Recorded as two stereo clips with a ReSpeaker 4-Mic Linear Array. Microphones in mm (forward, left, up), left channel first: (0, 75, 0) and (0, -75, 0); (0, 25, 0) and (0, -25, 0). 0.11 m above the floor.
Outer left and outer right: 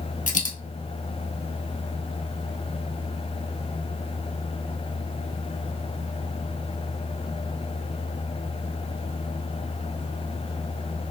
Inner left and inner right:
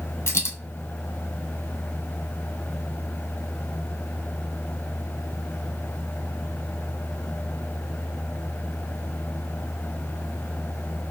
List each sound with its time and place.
0.3 s a dropped coin: 60° left (ahead or behind), 0.9 m